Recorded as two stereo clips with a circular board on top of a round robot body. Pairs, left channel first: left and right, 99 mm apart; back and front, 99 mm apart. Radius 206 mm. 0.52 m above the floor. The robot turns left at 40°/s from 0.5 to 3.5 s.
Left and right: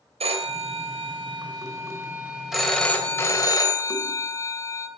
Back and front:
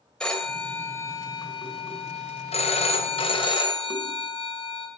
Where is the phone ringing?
95° right, 2 m; by 4.9 s 145° left, 2 m.